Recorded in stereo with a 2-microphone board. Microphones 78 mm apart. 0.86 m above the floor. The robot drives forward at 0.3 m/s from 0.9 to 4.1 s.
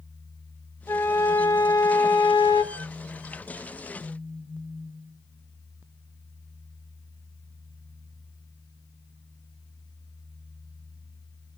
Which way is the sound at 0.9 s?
35° left (ahead or behind).